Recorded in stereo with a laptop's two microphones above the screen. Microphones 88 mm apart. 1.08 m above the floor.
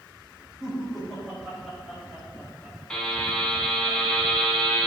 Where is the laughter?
5° left (ahead or behind), 4 m; by 3.9 s 20° right (ahead or behind), 6.5 m.